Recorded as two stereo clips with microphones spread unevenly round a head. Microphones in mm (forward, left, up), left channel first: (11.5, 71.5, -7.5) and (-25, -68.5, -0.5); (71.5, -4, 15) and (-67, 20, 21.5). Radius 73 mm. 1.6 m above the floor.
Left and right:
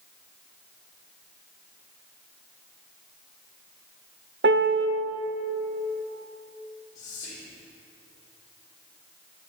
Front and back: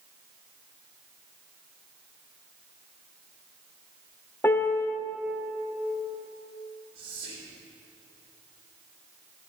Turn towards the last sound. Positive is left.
turn(degrees=140)